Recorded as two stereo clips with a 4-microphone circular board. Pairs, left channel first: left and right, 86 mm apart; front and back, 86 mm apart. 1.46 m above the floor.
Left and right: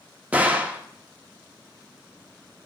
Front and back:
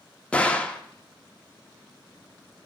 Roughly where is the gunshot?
Ahead right.